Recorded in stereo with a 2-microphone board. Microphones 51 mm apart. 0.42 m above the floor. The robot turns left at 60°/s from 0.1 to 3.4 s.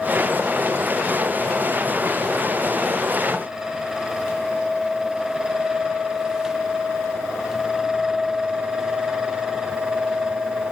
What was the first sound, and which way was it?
Only background noise.